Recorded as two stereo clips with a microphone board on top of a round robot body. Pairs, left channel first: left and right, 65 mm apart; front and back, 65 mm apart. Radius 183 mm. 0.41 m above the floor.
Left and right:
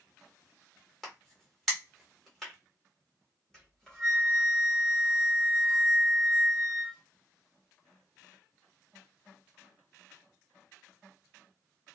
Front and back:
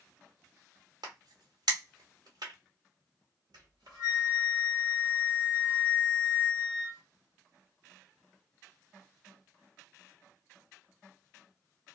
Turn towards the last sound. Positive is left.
turn(degrees=170)